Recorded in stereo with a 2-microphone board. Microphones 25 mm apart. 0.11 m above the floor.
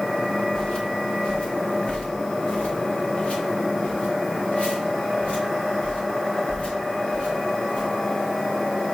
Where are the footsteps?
35° left (ahead or behind), 1.8 m; by 7.9 s 65° left (ahead or behind), 5.5 m.